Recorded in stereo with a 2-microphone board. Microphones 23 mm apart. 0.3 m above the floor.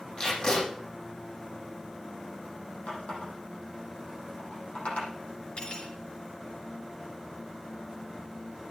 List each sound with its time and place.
0.2 s tape being pulled: 40° left (ahead or behind), 7 m
2.9 s a running tap: 65° left (ahead or behind), 7.5 m
5.6 s cutlery clinking: 50° left (ahead or behind), 3 m